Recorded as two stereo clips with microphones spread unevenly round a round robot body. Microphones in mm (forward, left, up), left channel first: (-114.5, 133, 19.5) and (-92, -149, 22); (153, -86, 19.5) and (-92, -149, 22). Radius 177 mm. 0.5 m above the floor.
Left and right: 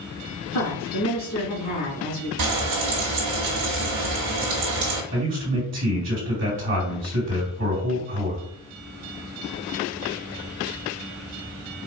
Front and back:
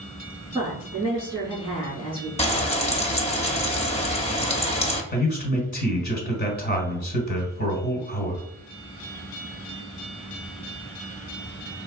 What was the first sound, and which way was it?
A woman speaking, 110° left.